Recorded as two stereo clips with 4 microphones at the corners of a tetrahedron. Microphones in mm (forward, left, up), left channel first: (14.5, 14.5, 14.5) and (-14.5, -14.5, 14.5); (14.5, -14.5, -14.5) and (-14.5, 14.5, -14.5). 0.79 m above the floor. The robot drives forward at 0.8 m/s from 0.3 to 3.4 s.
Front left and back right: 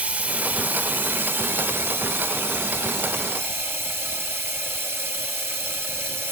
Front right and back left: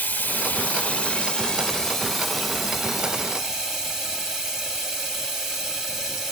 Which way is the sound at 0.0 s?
85° right.